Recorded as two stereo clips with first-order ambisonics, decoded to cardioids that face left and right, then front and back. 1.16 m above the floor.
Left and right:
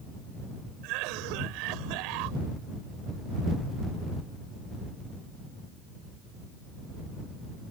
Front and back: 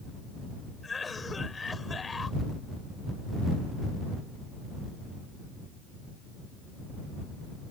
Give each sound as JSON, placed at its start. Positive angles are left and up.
{"t": 0.8, "sound": "a cough", "azimuth_deg": -75}